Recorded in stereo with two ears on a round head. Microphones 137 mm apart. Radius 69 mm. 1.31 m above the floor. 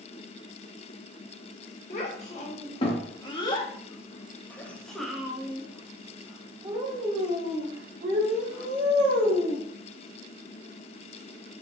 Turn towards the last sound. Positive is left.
turn(degrees=-55)  # may be behind; listen again after turning